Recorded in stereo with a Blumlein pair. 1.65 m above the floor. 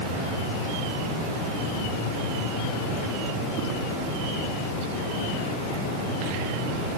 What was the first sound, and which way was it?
Only background noise.